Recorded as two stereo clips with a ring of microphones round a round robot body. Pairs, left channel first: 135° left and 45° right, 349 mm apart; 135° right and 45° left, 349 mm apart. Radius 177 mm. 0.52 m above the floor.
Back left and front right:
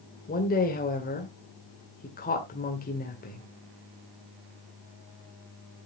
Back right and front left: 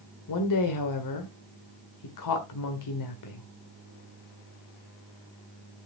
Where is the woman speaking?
160° right, 2.0 m.